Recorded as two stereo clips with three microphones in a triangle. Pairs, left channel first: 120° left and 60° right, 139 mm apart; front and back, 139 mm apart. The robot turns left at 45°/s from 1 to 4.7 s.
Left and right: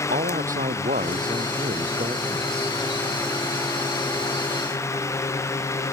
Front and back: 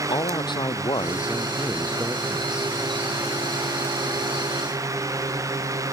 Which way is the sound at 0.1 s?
55° right.